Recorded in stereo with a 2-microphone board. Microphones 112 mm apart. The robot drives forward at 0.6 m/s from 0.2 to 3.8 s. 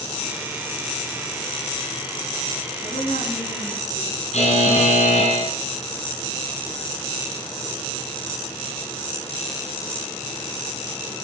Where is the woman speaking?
75° left (ahead or behind), 9.5 m; by 4.2 s 70° left (ahead or behind), 10 m.